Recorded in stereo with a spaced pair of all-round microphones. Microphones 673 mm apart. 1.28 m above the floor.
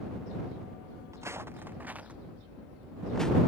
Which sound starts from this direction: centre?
Footsteps, at 1.1 s.